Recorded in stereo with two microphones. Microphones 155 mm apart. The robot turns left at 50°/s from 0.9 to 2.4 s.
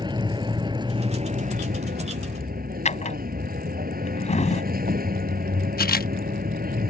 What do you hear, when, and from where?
0.0 s a vehicle: 30° right; by 6.9 s 105° right
2.9 s a drawer: 50° left (ahead or behind)
5.8 s a camera shutter: 80° left